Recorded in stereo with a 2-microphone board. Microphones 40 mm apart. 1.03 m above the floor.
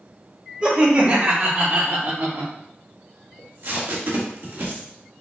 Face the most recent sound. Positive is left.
turn(degrees=-65)  # may be behind; listen again after turning